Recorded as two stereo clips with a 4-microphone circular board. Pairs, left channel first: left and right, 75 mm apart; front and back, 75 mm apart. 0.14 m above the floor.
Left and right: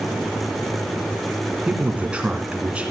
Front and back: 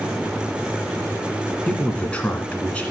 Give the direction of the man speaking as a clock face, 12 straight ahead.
1 o'clock.